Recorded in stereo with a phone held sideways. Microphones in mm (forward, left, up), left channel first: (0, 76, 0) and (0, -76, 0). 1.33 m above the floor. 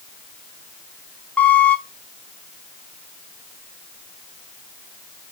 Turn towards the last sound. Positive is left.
turn(degrees=10)  # may be behind; listen again after turning